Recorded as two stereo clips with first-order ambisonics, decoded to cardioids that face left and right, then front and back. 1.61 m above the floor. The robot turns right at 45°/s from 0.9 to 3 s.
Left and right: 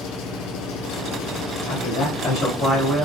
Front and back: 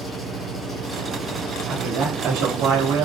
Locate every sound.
0.0 s an engine running: 80° left, 4.5 m; by 3.0 s 175° left, 4.5 m
1.7 s a man speaking: 120° left, 4.5 m; by 3.0 s straight behind, 4.5 m